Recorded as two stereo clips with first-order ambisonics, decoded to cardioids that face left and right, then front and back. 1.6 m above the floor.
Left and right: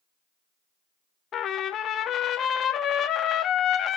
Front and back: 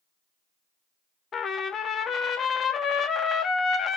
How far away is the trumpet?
About 0.8 m.